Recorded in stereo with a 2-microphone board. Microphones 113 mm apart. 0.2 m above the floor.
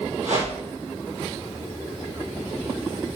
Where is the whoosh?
80° right, 5 m.